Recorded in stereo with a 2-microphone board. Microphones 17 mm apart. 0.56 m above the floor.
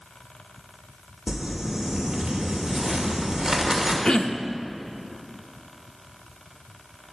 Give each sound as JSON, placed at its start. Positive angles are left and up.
{"t": 1.3, "sound": "crumpling", "side_deg": -30, "distance_m": 2.5}
{"t": 4.0, "sound": "throat clearing", "side_deg": 50, "distance_m": 0.6}